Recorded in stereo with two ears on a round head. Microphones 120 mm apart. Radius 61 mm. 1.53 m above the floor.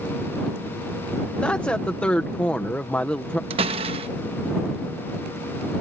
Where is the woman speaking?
10° left (ahead or behind).